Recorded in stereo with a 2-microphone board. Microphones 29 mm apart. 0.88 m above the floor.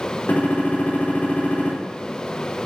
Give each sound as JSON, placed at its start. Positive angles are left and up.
{"t": 0.3, "sound": "a gunshot", "side_deg": 70, "distance_m": 3.0}